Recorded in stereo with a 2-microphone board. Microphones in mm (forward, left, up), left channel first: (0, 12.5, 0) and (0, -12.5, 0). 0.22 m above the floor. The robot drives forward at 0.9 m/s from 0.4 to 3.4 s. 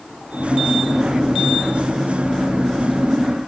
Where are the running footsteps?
I don't hear running footsteps.